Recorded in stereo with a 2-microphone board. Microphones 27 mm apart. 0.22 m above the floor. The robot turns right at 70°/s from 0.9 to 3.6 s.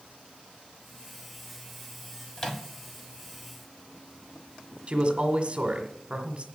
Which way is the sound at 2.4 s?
20° left (ahead or behind).